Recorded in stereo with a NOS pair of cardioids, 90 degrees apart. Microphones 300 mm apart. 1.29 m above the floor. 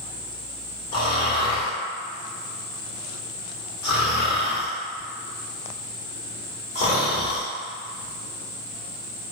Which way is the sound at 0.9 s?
50° left.